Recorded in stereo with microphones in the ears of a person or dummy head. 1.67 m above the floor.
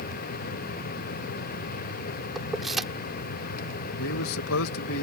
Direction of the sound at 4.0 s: 75° left (ahead or behind).